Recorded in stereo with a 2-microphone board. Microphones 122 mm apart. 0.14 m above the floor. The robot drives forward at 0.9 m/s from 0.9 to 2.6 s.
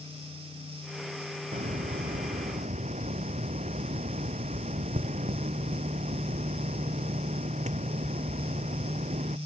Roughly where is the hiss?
Right.